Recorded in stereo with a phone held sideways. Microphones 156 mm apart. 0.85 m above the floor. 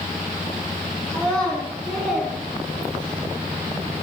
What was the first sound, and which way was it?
A child speaking, 5° left (ahead or behind).